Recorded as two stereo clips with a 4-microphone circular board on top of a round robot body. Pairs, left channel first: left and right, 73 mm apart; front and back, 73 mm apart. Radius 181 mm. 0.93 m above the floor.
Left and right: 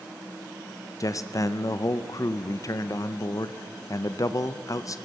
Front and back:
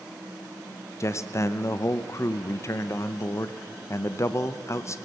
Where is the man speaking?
50° left, 0.9 m.